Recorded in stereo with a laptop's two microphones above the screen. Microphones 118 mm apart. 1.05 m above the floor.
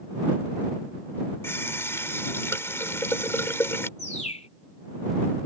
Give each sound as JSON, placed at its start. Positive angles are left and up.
{"t": 1.4, "sound": "a running tap", "side_deg": 20}
{"t": 4.0, "sound": "a bird", "side_deg": 75}